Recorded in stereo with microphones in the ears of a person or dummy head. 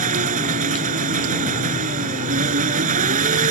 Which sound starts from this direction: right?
An engine running, at 0.0 s.